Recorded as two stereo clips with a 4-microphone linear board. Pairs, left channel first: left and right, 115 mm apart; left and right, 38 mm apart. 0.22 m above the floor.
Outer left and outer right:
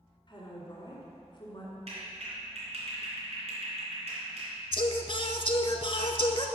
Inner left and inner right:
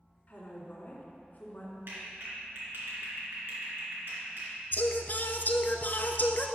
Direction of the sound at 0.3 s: 40° left (ahead or behind).